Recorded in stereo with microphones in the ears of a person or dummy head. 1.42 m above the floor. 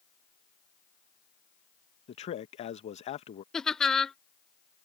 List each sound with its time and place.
2.1 s a man speaking: 35° left (ahead or behind)
3.5 s laughter: centre (ahead or behind)